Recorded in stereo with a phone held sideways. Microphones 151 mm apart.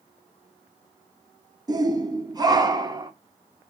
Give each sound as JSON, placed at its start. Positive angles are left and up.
{"t": 1.7, "sound": "a shout", "side_deg": -25, "distance_m": 0.8}